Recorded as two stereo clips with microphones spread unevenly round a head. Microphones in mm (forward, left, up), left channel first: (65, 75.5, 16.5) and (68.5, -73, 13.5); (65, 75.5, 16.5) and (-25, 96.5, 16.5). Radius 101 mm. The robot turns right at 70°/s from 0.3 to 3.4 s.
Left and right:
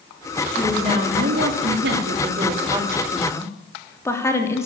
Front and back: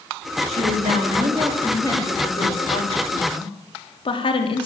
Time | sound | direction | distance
0.5 | a woman speaking | 175° left | 3 m